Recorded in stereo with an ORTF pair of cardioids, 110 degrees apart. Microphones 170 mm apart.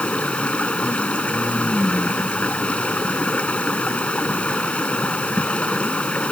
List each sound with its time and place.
0.0 s running water: 5° left